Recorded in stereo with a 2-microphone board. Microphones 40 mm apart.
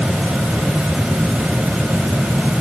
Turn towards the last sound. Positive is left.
No sound to turn to.